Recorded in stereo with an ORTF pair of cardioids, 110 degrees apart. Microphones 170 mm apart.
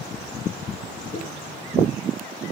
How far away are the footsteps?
About 6 m.